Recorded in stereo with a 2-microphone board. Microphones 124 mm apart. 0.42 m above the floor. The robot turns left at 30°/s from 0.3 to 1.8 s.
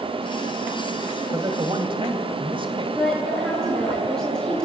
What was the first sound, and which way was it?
A man speaking, 30° right (ahead or behind).